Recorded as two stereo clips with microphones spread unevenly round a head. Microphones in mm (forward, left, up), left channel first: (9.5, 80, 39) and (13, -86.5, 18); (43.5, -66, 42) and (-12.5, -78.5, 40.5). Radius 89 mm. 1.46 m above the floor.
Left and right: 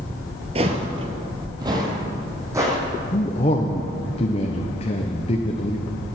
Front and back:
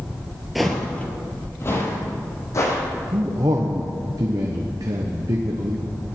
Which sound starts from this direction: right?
Footsteps, at 0.6 s.